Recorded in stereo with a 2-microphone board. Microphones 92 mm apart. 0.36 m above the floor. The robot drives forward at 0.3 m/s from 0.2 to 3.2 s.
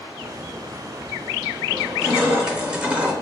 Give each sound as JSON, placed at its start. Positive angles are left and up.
{"t": 1.7, "sound": "crushing", "side_deg": -10, "distance_m": 0.9}